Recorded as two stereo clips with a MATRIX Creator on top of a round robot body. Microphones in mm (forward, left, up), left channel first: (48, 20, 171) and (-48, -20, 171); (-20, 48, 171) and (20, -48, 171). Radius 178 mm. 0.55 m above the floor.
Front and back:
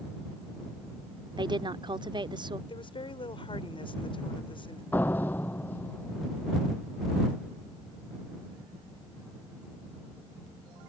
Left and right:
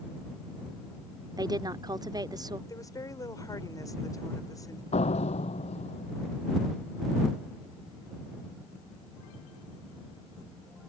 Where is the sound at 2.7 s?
55° left.